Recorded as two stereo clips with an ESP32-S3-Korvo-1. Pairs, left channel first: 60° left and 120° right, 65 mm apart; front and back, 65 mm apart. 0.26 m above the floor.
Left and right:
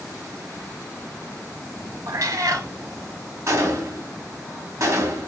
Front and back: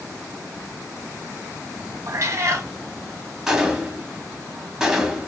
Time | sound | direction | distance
2.1 | a cat meowing | 145° right | 0.5 m
3.5 | a gunshot | 100° right | 0.7 m